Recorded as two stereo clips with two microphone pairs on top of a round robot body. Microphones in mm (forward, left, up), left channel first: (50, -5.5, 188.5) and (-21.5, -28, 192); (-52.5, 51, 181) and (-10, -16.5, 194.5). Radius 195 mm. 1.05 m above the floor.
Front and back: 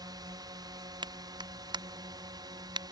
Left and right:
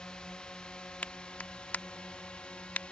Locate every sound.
0.0 s a drone: 165° right
1.0 s a clap: 165° right